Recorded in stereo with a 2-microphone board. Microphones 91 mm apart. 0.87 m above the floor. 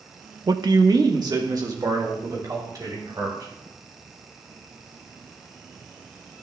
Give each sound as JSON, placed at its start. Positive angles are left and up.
{"t": 0.5, "sound": "a man speaking", "side_deg": -45, "distance_m": 0.6}